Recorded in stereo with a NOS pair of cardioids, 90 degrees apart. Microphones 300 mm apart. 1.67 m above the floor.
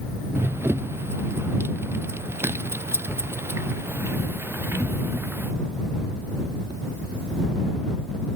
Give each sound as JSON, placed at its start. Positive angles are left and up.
{"t": 0.3, "sound": "running footsteps", "azimuth_deg": -10}